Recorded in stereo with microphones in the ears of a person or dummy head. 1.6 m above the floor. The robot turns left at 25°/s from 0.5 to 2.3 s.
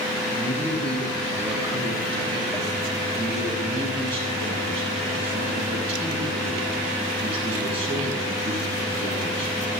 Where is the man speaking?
15° left, 9 m; by 9.6 s 30° right, 9 m.